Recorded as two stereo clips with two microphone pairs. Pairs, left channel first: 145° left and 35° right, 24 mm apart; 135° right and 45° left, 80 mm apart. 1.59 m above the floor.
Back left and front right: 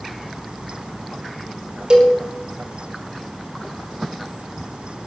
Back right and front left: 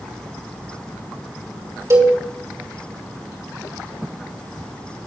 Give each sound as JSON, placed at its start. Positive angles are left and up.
{"t": 1.9, "sound": "a cowbell", "azimuth_deg": 10, "distance_m": 2.5}